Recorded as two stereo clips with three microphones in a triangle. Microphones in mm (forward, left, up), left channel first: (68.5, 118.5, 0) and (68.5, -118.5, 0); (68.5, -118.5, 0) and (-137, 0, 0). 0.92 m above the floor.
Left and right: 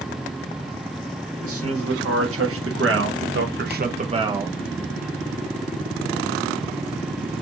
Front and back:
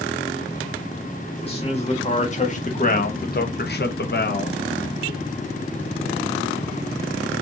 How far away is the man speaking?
About 1.7 m.